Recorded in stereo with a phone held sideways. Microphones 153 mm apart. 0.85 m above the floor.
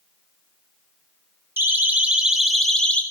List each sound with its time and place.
1.6 s a siren: 15° right (ahead or behind), 2.5 m; by 3.0 s 10° left (ahead or behind), 2.0 m